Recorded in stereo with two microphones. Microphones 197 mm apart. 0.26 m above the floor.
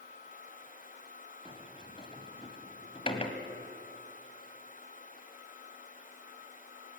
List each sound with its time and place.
1.4 s a sliding door: 30° left (ahead or behind), 1.7 m